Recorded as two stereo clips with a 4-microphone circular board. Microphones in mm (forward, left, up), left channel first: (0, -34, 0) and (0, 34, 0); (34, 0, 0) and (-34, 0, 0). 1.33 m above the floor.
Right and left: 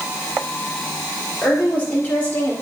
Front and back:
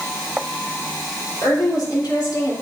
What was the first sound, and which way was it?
A woman speaking, 20° right.